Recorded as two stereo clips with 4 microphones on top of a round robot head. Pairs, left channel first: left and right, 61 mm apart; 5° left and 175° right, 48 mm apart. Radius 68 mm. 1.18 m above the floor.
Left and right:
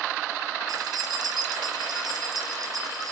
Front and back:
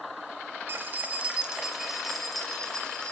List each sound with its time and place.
0.7 s keys jangling: 120° right, 1.4 m; by 3.1 s 70° right, 2.5 m